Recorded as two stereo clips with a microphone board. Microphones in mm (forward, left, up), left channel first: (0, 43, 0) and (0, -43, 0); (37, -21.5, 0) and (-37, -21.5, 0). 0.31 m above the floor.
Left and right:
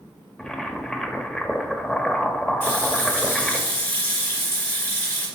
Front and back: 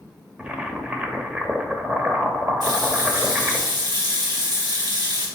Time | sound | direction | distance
0.4 | boiling | 155° left | 0.7 m
2.6 | a running tap | 155° left | 2.5 m